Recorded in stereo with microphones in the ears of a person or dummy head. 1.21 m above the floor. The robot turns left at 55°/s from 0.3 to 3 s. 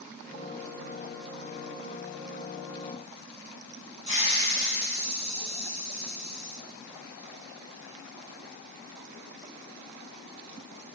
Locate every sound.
4.1 s a hiss: 35° right (ahead or behind), 3.5 m